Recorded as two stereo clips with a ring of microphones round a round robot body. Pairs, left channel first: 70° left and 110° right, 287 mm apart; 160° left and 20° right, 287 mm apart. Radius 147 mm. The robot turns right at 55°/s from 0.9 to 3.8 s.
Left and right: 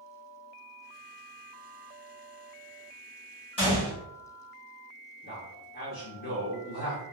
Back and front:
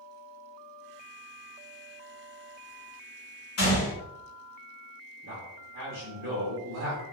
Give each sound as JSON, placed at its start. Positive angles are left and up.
{"t": 3.6, "sound": "a gunshot", "azimuth_deg": 135, "distance_m": 1.5}
{"t": 5.2, "sound": "a man speaking", "azimuth_deg": 15, "distance_m": 0.9}